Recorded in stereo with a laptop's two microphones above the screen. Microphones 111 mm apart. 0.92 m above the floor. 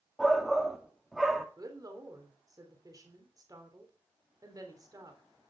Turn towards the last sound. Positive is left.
turn(degrees=-35)  # may be behind; listen again after turning